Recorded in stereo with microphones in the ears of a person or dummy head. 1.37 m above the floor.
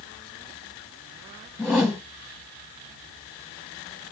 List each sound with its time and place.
1.6 s a whoosh: 10° left (ahead or behind), 0.7 m